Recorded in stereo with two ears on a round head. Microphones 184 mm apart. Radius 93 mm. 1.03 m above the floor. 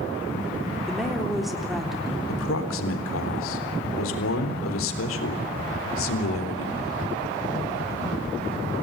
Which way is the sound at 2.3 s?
75° left (ahead or behind).